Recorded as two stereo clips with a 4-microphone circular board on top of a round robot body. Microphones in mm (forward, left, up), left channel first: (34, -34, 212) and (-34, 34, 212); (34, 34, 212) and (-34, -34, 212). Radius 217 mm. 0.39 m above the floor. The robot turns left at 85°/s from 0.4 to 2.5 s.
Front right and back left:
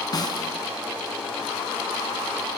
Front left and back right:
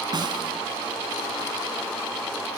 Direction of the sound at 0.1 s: 95° right.